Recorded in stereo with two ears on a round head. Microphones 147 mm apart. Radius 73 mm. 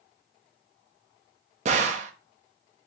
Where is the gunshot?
45° right (ahead or behind), 0.6 m.